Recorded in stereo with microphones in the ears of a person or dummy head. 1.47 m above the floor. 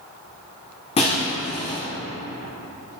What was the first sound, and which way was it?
Breaking glass, 25° left (ahead or behind).